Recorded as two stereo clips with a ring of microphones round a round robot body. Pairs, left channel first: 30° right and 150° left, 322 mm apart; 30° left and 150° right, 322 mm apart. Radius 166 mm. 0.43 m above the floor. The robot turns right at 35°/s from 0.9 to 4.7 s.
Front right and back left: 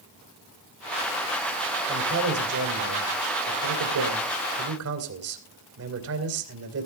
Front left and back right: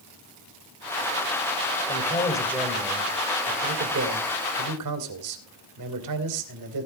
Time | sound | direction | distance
1.9 | a man speaking | 90° left | 3 m